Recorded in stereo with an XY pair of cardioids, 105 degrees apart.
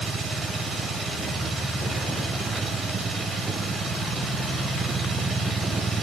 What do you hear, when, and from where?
0.0 s a machine running: 45° right, 1.4 m